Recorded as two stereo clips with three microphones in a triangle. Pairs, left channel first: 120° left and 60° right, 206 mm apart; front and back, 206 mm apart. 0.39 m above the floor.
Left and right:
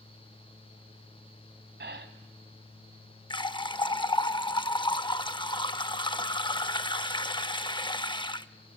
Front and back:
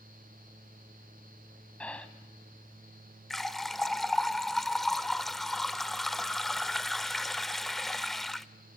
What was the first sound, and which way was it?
Breathing, 85° right.